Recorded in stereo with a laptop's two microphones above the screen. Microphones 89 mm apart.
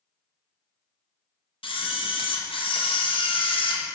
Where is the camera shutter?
80° left, 0.6 m.